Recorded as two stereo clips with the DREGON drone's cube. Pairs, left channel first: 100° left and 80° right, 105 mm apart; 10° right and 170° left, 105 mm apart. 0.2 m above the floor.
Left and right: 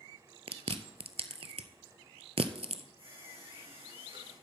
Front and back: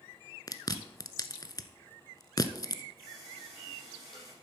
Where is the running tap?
50° right, 6.5 m.